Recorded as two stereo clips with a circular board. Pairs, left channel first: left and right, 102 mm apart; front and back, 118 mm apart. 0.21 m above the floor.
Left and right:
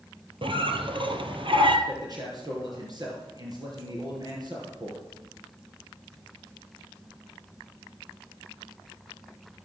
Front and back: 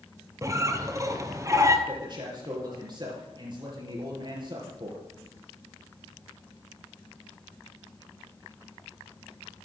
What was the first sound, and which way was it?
A squeak, 120° right.